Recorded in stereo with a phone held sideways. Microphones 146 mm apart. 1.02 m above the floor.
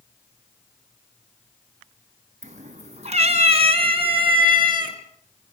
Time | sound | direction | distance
2.4 | a cat meowing | 55° right (ahead or behind) | 3 m